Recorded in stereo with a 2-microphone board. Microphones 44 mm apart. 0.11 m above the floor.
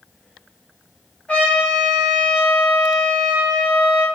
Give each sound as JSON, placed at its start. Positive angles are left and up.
{"t": 1.3, "sound": "a trumpet", "side_deg": 30, "distance_m": 1.8}